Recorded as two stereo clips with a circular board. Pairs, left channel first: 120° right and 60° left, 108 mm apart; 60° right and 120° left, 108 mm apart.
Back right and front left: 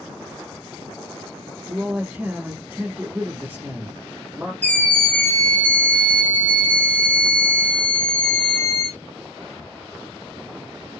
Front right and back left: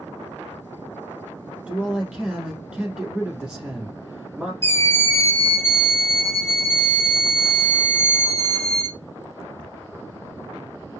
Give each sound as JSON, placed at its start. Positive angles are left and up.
{"t": 1.7, "sound": "a man speaking", "azimuth_deg": 55, "distance_m": 1.1}
{"t": 4.6, "sound": "a scream", "azimuth_deg": -70, "distance_m": 1.2}